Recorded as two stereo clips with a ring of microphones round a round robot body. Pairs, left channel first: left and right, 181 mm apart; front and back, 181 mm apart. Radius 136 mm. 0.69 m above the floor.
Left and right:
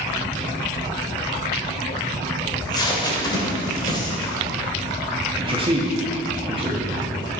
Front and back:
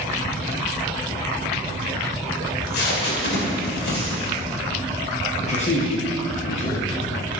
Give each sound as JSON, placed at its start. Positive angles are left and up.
{"t": 2.5, "sound": "tape being pulled", "azimuth_deg": 25, "distance_m": 2.5}
{"t": 5.4, "sound": "a man speaking", "azimuth_deg": -40, "distance_m": 1.3}